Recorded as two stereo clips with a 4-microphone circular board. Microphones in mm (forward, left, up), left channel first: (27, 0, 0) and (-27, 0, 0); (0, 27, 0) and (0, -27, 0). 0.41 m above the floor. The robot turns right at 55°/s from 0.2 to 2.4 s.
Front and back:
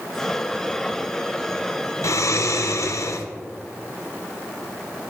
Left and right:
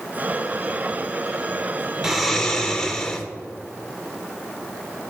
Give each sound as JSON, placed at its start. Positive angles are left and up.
{"t": 2.0, "sound": "snoring", "azimuth_deg": -5, "distance_m": 0.6}